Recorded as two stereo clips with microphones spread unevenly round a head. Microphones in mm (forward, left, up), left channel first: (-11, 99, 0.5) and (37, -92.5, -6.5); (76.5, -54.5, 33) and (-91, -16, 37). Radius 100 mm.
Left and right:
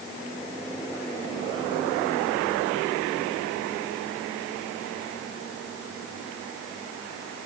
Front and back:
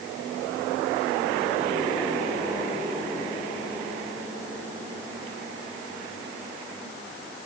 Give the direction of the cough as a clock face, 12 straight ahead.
I don't hear a cough.